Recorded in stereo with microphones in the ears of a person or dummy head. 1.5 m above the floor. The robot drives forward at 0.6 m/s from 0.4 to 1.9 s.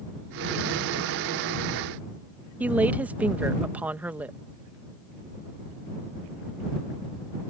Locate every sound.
2.6 s a woman speaking: 10° right (ahead or behind)